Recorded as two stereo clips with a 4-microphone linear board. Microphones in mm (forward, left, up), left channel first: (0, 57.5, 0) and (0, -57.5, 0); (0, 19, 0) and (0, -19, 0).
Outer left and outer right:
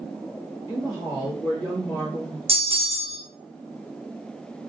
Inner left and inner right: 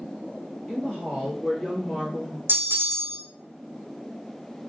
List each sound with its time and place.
0.7 s a woman speaking: 35° left (ahead or behind), 1.9 m; by 2.4 s 15° left (ahead or behind), 2 m
2.5 s a bell: 60° right (ahead or behind), 0.7 m